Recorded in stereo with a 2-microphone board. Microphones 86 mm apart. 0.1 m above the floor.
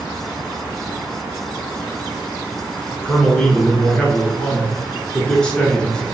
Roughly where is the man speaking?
Centre.